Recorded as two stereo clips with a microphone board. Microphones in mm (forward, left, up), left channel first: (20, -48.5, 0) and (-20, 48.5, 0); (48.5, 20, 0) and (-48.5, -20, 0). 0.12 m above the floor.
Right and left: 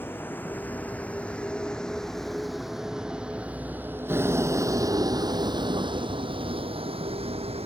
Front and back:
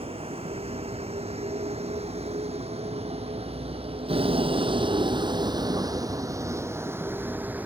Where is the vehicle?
140° right; by 7.7 s 130° left.